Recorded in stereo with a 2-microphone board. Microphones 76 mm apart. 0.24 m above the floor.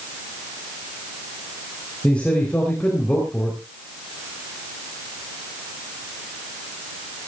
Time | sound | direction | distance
2.0 | a man speaking | 15° left (ahead or behind) | 4.5 m